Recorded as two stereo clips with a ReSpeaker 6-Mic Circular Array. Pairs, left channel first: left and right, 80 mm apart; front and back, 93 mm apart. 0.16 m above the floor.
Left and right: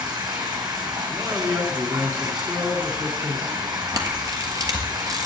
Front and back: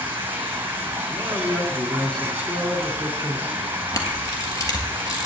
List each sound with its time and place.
0.0 s running water: 115° right, 2.0 m
1.1 s a man speaking: 75° right, 1.8 m
3.9 s a camera shutter: 50° right, 1.4 m